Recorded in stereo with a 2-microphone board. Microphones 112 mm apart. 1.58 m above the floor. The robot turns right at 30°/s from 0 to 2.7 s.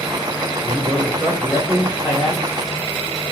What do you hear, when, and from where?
0.6 s a man speaking: 50° right, 0.7 m; by 2.4 s straight ahead, 0.7 m